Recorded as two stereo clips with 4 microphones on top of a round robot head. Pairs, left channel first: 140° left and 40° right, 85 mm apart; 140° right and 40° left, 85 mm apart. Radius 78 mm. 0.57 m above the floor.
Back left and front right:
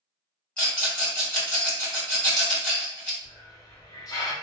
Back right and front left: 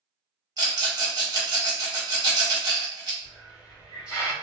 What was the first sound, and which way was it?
A rattle, 65° left.